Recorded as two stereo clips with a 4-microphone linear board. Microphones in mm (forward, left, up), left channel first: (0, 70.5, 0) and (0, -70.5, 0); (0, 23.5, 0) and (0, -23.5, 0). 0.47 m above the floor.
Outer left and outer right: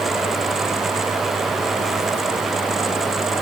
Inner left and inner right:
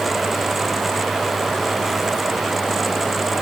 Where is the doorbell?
No doorbell in this recording.